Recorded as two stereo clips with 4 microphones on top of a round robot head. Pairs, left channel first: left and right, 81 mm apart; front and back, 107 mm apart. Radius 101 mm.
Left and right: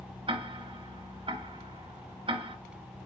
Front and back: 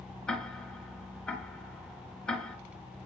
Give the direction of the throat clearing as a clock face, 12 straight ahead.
I don't hear throat clearing.